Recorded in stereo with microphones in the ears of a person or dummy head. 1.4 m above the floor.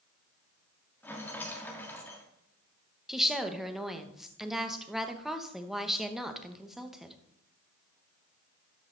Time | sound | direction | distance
1.0 | a rattle | 10° left (ahead or behind) | 1.4 m
3.1 | a woman speaking | 5° right (ahead or behind) | 1.1 m